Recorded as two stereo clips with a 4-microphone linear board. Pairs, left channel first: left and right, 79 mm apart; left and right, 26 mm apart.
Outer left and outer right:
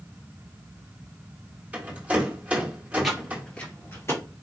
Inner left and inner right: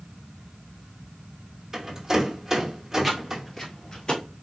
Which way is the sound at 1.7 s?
15° right (ahead or behind).